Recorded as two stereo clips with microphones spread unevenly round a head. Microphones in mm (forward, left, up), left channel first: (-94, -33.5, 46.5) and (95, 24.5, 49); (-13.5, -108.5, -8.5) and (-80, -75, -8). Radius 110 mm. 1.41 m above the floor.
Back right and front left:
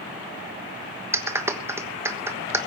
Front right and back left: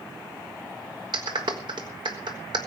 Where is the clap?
95° left, 1.3 m.